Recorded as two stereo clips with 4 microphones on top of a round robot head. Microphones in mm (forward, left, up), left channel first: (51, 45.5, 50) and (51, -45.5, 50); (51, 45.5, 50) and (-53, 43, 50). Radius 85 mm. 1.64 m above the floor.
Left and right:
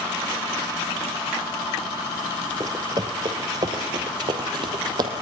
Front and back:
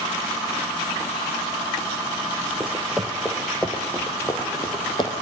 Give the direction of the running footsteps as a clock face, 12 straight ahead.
4 o'clock.